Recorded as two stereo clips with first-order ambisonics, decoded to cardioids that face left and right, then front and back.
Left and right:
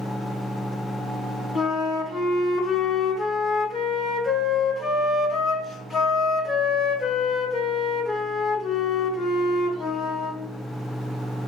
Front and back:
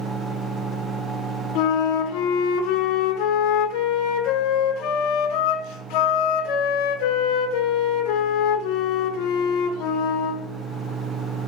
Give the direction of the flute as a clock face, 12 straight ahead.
11 o'clock.